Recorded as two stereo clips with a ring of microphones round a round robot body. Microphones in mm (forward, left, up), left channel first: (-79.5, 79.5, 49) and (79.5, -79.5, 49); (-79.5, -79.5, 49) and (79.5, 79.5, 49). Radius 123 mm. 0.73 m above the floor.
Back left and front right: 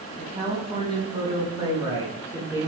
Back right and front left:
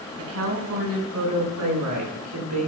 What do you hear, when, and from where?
0.2 s a woman speaking: 20° left, 6 m; by 2.7 s 35° left, 8 m